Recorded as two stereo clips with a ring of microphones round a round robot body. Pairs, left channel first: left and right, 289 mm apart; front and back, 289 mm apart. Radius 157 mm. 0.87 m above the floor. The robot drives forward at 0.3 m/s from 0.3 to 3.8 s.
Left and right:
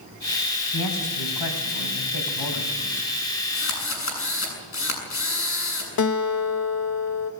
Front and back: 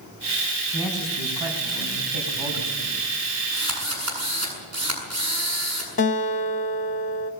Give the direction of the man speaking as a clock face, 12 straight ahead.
9 o'clock.